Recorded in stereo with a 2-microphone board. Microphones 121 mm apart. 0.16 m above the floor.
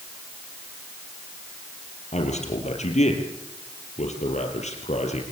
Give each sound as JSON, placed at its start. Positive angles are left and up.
{"t": 2.1, "sound": "a man speaking", "side_deg": 70, "distance_m": 5.0}